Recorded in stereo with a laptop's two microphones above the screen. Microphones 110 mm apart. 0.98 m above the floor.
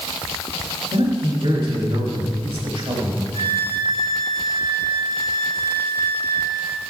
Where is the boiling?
No boiling in this recording.